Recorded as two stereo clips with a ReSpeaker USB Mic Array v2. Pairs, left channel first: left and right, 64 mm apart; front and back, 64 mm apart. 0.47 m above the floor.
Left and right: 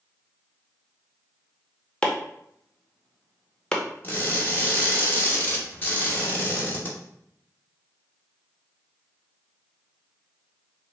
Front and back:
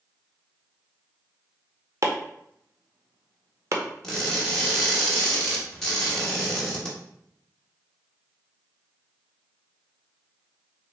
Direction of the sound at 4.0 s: 70° left.